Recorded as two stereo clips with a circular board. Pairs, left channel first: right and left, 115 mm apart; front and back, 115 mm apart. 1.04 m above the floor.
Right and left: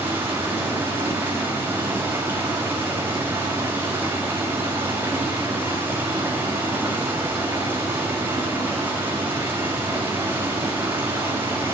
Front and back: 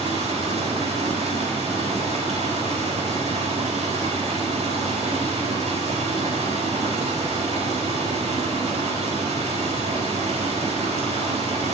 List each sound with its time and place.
0.0 s running water: 160° left, 4.5 m